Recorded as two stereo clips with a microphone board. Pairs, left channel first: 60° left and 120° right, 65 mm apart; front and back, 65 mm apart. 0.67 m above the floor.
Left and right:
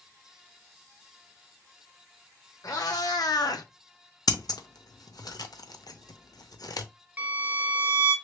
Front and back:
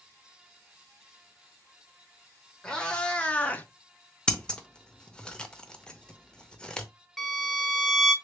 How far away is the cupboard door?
I don't hear a cupboard door.